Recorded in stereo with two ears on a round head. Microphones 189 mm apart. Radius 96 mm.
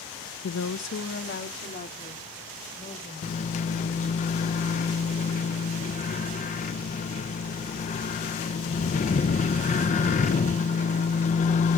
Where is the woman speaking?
70° left (ahead or behind), 0.7 m; by 4.2 s 25° left (ahead or behind), 5 m.